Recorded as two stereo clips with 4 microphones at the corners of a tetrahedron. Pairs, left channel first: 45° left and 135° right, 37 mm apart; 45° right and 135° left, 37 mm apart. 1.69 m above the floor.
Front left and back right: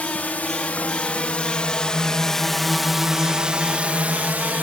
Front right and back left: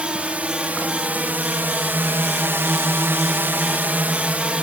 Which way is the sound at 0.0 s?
85° left.